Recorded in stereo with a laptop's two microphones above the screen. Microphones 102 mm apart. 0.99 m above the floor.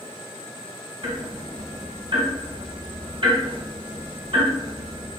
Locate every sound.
1.0 s ticking: 55° right (ahead or behind), 1.6 m